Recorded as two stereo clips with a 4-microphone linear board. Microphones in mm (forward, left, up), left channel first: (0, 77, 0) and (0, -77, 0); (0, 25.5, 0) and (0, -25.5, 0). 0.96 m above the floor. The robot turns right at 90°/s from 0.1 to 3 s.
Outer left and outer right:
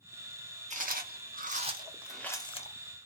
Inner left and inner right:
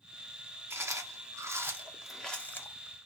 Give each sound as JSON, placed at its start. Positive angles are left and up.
{"t": 0.7, "sound": "chewing", "side_deg": -50, "distance_m": 1.1}